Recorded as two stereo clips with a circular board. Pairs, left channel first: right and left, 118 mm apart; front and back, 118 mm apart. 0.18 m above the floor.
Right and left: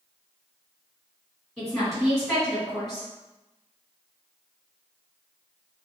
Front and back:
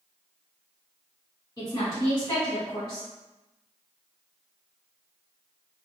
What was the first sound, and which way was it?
A woman speaking, straight ahead.